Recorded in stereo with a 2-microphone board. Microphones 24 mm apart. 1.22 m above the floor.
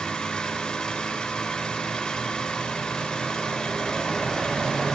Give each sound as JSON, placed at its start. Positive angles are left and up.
{"t": 0.0, "sound": "an engine running", "side_deg": 35, "distance_m": 8.0}